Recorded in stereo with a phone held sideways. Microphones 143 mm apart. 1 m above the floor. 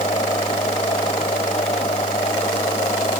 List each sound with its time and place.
0.0 s a machine running: 40° left (ahead or behind)